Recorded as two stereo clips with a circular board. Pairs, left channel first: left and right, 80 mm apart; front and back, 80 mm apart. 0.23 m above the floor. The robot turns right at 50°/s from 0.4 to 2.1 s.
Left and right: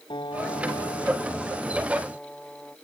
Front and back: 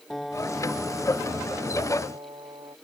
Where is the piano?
90° left; by 2.8 s 175° left.